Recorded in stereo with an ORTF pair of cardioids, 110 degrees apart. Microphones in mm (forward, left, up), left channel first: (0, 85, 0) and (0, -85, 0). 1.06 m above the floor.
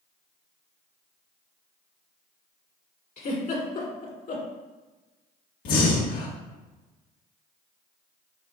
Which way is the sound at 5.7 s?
65° left.